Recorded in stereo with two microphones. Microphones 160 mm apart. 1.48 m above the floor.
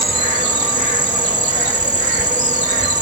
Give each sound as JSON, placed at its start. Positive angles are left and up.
{"t": 0.0, "sound": "an insect", "side_deg": -50}